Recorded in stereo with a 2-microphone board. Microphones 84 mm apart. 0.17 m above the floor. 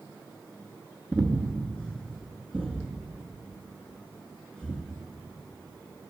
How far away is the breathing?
About 0.6 m.